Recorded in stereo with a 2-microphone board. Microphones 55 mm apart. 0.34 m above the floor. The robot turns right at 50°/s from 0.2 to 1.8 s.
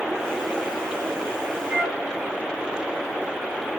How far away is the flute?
About 1.6 m.